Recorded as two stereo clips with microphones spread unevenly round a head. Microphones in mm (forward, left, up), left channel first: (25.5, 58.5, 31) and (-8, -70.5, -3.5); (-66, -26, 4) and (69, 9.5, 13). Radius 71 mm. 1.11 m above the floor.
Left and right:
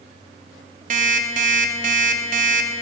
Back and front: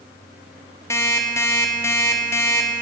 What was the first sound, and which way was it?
An alarm clock, 105° right.